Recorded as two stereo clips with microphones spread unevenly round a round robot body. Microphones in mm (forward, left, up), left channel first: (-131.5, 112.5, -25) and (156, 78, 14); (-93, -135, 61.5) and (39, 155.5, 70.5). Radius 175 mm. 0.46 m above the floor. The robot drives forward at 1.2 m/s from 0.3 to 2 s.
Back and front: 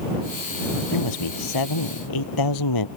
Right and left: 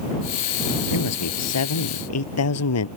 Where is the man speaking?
155° right.